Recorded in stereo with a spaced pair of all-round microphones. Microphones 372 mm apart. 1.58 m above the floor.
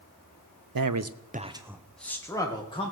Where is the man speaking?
70° right (ahead or behind), 0.7 m; by 2.9 s 15° left (ahead or behind), 2 m.